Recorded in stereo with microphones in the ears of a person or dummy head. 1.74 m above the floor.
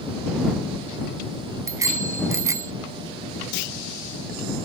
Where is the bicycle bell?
15° right (ahead or behind).